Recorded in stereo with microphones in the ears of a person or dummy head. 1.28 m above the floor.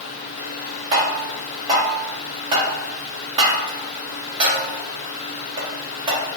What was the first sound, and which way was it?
Tapping, 25° right (ahead or behind).